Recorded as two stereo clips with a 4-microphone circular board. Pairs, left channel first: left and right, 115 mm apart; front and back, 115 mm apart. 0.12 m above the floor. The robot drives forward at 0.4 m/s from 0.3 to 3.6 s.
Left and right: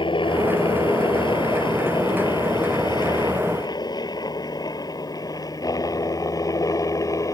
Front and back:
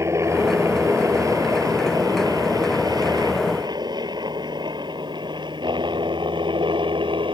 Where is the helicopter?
120° left; by 7.3 s 145° left.